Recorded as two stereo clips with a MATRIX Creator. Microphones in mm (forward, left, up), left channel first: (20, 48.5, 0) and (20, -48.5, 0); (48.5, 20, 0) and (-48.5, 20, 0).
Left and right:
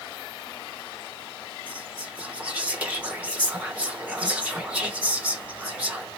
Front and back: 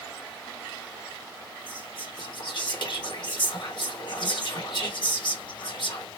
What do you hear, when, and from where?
1.7 s whispering: 15° right, 1.4 m